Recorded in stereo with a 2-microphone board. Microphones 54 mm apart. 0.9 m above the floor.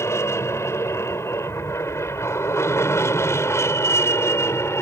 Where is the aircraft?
65° left (ahead or behind); by 4.8 s 60° left (ahead or behind).